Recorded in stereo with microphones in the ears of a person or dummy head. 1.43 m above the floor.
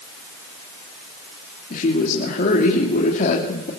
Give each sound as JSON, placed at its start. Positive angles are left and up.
{"t": 1.7, "sound": "a woman speaking", "side_deg": 40, "distance_m": 3.0}